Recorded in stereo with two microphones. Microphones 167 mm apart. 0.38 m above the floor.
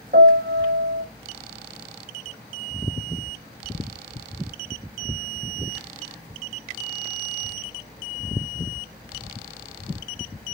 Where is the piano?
90° right, 3.5 m.